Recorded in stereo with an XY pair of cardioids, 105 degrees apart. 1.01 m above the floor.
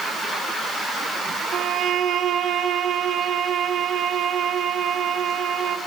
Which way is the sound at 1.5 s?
60° right.